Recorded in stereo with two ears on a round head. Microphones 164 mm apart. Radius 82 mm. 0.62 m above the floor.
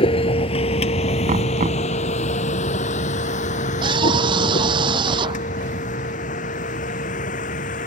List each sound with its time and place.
0.0 s a vehicle: 30° left (ahead or behind); by 7.9 s 45° left (ahead or behind)
1.3 s knocking: 40° right (ahead or behind)
3.8 s a scream: 25° right (ahead or behind)